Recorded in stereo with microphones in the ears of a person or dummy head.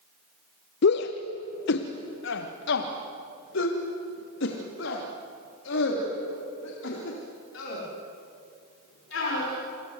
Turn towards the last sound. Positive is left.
turn(degrees=65)  # may be behind; listen again after turning